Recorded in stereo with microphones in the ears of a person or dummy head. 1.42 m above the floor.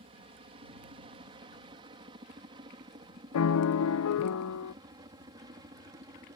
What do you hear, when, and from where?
0.0 s a helicopter: 30° right (ahead or behind); by 6.4 s 20° right (ahead or behind)
3.3 s a piano: 80° left